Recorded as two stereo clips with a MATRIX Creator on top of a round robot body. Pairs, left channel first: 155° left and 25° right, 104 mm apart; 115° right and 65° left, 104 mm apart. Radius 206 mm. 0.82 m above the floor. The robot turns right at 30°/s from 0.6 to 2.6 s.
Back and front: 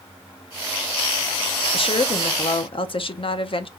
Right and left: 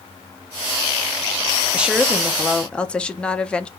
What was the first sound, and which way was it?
A woman speaking, 145° left.